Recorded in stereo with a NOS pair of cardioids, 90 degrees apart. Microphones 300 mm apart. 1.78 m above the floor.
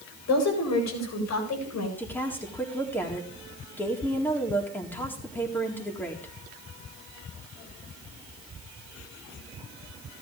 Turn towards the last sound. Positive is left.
turn(degrees=5)